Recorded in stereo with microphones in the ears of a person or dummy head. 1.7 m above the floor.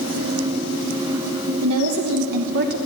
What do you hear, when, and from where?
1.6 s a woman speaking: 85° right, 1.0 m; by 2.8 s 50° right (ahead or behind), 0.7 m